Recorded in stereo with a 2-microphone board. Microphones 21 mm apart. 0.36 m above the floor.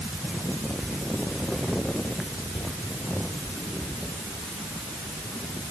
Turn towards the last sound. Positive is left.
No sound to turn to.